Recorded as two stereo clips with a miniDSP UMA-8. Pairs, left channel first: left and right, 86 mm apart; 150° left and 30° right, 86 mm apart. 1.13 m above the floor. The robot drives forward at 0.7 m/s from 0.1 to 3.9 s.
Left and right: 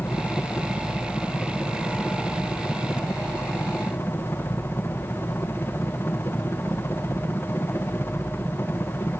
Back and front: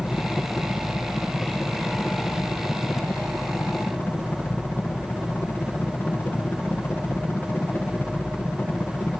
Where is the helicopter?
100° left; by 9.2 s 105° left.